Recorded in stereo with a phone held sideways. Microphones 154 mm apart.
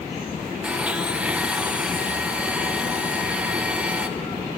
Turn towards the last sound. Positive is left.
turn(degrees=-10)  # may be behind; listen again after turning